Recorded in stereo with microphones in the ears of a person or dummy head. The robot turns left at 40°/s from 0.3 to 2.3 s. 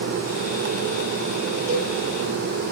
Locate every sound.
1.7 s a cowbell: 30° right (ahead or behind), 1.5 m; by 1.9 s 20° right (ahead or behind), 1.5 m